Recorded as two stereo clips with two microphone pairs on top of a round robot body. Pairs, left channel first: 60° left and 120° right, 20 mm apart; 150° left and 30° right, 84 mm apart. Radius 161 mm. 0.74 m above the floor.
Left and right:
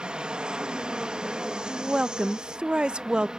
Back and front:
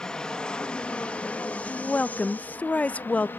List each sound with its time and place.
0.0 s an aircraft: 140° right; by 3.4 s 160° right
1.7 s a woman speaking: 145° right